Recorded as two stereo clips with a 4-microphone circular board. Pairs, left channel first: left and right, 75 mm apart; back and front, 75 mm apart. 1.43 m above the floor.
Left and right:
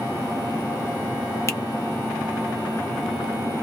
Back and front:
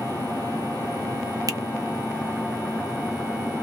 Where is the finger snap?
40° left, 0.7 m.